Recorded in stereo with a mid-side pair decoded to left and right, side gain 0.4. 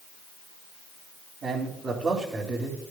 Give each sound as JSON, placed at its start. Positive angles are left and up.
{"t": 1.4, "sound": "a man speaking", "azimuth_deg": -60, "distance_m": 3.0}